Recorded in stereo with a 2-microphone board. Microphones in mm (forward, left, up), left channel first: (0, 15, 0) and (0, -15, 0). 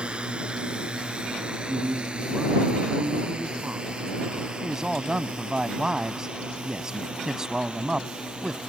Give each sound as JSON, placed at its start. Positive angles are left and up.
{"t": 0.0, "sound": "a drone", "side_deg": -35}
{"t": 1.6, "sound": "a man speaking", "side_deg": -60}
{"t": 4.6, "sound": "a man speaking", "side_deg": -20}